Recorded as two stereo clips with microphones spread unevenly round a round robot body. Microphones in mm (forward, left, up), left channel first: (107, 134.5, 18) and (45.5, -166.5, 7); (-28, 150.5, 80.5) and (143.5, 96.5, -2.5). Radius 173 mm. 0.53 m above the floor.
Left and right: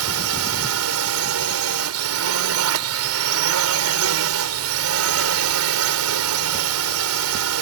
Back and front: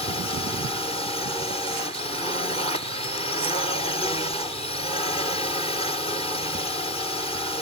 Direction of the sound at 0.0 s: 115° right.